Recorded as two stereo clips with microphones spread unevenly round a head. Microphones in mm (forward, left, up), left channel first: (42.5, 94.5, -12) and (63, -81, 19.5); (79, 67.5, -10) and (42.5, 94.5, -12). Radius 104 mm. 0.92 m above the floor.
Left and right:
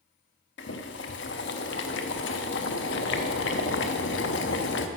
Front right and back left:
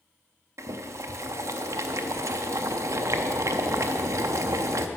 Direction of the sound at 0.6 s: 135° left.